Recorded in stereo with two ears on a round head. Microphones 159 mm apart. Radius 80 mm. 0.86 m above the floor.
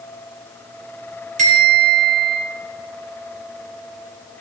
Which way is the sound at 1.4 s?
45° right (ahead or behind).